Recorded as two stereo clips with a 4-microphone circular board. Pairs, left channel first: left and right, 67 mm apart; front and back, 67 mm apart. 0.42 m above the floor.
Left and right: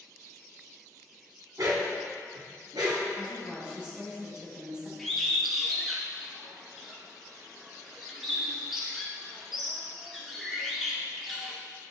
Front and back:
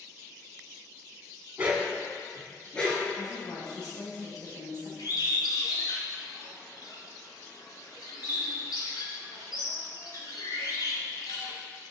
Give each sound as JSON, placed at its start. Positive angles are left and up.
{"t": 1.6, "sound": "a dog barking", "azimuth_deg": -110, "distance_m": 1.3}
{"t": 3.2, "sound": "a woman speaking", "azimuth_deg": -15, "distance_m": 2.5}
{"t": 5.0, "sound": "a bird", "azimuth_deg": -5, "distance_m": 1.6}